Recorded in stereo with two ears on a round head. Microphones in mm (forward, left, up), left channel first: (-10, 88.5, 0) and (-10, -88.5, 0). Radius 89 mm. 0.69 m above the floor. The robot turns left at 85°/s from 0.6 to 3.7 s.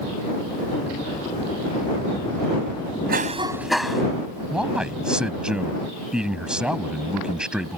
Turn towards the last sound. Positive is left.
turn(degrees=-5)  # may be behind; listen again after turning